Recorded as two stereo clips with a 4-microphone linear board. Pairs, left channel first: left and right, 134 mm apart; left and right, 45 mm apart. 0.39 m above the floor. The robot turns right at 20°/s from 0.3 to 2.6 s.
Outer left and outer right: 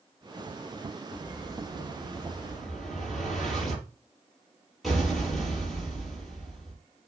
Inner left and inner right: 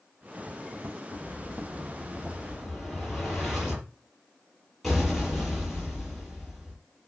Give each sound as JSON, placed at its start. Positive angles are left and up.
{"t": 1.1, "sound": "an explosion", "side_deg": 30, "distance_m": 5.5}